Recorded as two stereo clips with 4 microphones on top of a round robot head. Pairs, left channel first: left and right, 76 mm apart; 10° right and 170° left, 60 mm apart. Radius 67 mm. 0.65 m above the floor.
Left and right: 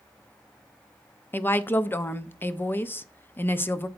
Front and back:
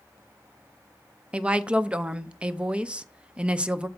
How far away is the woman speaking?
About 0.6 m.